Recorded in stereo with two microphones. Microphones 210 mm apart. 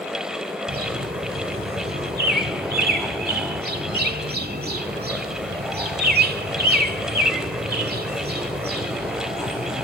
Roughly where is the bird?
Right.